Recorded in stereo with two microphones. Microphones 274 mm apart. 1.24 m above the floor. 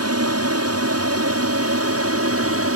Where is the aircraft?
65° right (ahead or behind); by 2.8 s 55° right (ahead or behind).